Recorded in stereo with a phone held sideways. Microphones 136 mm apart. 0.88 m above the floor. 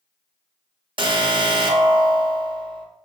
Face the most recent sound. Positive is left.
turn(degrees=-35)  # may be behind; listen again after turning